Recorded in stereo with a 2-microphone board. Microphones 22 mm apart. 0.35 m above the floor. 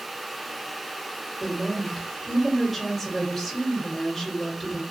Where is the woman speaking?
5° right (ahead or behind), 1.4 m.